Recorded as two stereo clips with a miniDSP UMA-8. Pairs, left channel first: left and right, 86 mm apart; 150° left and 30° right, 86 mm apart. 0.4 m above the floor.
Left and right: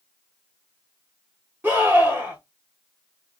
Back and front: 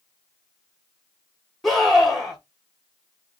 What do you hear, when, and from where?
1.6 s a scream: 125° right, 1.5 m